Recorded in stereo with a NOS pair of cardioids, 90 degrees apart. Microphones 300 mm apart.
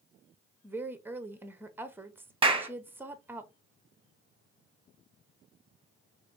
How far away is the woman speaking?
About 0.8 m.